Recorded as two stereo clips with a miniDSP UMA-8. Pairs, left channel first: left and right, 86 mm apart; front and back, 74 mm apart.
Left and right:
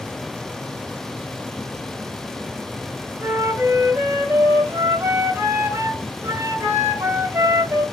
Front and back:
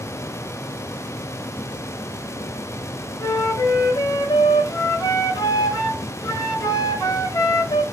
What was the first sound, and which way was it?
A flute, 30° right.